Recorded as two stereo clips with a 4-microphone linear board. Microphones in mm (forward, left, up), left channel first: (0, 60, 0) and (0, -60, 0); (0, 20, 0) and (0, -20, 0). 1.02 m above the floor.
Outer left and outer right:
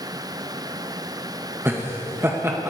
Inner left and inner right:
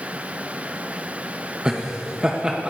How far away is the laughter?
About 0.8 m.